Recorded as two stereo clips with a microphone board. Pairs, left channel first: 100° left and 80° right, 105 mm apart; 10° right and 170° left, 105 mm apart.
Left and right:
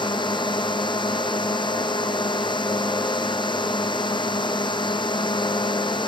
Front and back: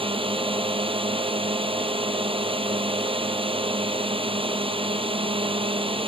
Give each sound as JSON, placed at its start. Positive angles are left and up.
{"t": 0.0, "sound": "a drone", "azimuth_deg": 140}